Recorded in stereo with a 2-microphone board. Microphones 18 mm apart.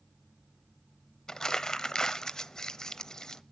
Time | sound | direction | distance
1.3 | crumpling | 30° left (ahead or behind) | 0.7 m